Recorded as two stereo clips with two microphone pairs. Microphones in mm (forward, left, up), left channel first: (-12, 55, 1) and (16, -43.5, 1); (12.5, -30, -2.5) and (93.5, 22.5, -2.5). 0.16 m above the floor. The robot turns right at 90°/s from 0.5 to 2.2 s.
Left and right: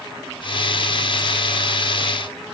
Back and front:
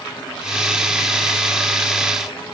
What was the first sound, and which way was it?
Only background noise.